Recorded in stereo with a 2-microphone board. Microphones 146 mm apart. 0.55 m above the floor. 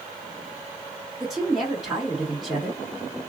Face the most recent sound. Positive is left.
turn(degrees=0)  # may be behind; listen again after turning